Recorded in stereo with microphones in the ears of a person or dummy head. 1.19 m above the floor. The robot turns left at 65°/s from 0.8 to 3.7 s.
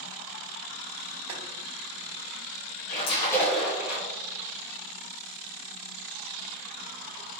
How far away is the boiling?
About 1.8 m.